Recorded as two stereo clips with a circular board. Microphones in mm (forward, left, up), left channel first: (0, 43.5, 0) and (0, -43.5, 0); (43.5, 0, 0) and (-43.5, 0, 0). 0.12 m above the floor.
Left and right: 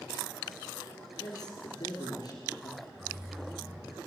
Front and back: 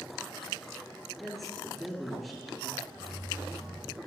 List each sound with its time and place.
1.2 s a man speaking: 90° left, 2.5 m
3.0 s keys jangling: 140° right, 3 m